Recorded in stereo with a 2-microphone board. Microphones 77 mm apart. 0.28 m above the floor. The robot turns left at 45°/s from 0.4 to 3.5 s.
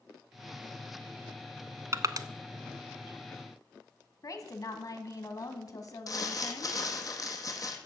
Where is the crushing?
40° right (ahead or behind), 0.6 m; by 2.3 s 60° right (ahead or behind), 0.6 m.